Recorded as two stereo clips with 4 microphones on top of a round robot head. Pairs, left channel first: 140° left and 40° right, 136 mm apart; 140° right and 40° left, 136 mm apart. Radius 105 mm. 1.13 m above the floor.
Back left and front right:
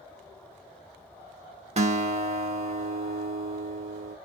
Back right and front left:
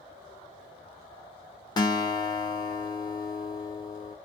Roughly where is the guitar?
Right.